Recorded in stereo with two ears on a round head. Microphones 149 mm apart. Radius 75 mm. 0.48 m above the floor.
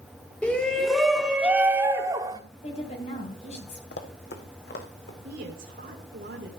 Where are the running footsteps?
65° left (ahead or behind), 1.7 m.